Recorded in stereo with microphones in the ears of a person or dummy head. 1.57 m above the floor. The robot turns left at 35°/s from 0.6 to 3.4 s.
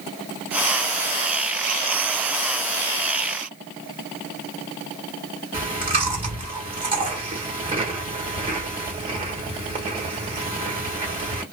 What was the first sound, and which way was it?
Chewing, 25° right (ahead or behind).